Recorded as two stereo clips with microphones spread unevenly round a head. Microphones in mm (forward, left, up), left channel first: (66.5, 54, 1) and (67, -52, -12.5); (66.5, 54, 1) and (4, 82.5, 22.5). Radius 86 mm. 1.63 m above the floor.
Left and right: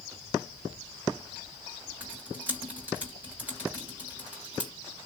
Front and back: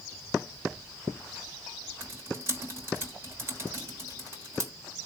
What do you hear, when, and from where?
2.0 s typing on a keyboard: 170° right, 0.9 m